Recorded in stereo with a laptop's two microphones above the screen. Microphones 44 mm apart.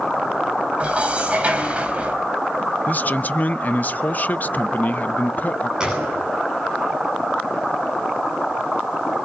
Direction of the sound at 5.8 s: 15° right (ahead or behind).